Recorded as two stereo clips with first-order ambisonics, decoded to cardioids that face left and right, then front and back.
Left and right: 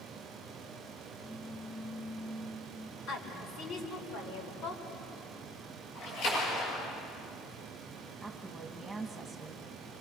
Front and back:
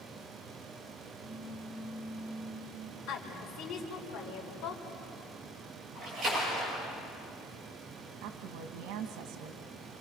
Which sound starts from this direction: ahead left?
A woman speaking, at 3.1 s.